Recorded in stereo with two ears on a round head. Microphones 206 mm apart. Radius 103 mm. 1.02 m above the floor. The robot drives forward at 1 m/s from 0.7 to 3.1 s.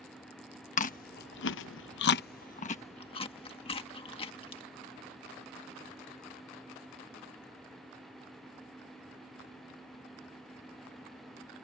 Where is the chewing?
35° left (ahead or behind); by 4.6 s 25° left (ahead or behind).